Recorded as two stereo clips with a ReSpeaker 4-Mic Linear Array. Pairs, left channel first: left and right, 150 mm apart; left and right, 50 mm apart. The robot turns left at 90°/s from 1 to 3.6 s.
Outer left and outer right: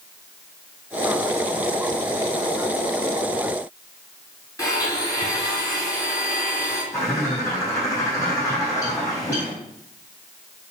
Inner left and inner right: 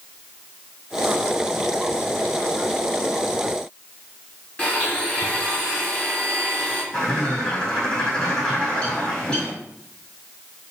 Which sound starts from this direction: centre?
A bird, at 6.9 s.